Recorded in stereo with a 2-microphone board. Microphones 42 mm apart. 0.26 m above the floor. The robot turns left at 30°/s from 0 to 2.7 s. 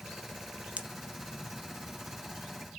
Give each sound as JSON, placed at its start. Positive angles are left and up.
{"t": 0.8, "sound": "a pop", "side_deg": -30, "distance_m": 0.6}